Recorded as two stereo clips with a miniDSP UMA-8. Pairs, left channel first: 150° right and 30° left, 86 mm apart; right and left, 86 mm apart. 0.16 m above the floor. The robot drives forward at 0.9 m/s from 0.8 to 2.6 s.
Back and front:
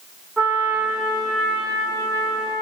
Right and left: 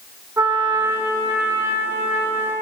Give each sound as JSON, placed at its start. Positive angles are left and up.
{"t": 0.4, "sound": "a trumpet", "azimuth_deg": 115, "distance_m": 2.0}